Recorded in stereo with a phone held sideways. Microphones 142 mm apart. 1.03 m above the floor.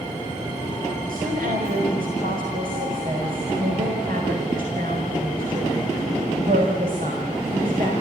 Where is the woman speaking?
85° right, 5 m.